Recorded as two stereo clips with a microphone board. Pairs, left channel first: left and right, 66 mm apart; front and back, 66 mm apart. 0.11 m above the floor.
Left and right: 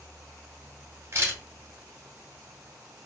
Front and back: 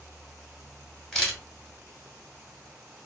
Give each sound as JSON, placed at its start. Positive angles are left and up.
{"t": 1.1, "sound": "a camera shutter", "azimuth_deg": -80, "distance_m": 1.2}